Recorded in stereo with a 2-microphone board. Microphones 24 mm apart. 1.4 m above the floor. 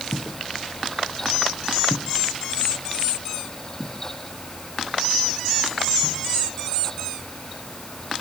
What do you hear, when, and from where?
0.1 s footsteps: 45° left (ahead or behind), 2 m; by 6.2 s 35° right (ahead or behind), 7 m